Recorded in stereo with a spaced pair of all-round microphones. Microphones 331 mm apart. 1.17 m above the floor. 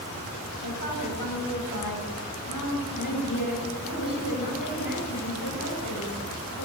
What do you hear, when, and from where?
0.6 s a woman speaking: 75° left (ahead or behind), 8 m